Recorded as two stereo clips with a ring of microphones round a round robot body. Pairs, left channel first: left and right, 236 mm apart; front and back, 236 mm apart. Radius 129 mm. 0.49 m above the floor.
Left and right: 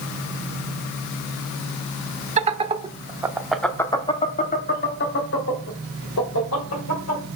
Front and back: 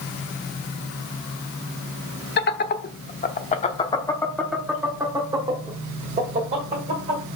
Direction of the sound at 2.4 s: 35° right.